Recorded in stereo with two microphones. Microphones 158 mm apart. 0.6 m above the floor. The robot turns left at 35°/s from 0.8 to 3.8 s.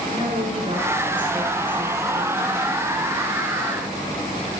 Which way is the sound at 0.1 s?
135° right.